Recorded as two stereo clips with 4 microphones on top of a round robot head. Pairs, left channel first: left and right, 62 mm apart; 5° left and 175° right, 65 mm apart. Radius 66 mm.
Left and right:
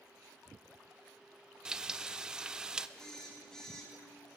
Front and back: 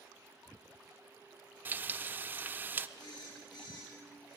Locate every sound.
1.6 s frying: 160° right, 0.5 m
3.0 s a phone buzzing: 10° left, 3.5 m